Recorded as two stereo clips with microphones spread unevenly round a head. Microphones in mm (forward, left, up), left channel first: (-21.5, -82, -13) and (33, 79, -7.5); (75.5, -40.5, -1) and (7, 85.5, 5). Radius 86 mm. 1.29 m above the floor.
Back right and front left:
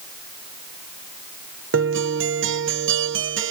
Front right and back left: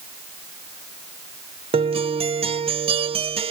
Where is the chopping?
I don't hear chopping.